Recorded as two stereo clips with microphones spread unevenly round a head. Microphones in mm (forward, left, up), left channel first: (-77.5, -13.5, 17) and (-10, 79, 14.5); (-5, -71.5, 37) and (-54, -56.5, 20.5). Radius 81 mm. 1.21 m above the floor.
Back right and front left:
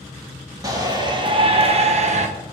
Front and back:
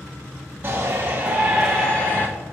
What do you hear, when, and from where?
0.6 s a shout: 115° left, 1.5 m; by 2.3 s 55° left, 1.1 m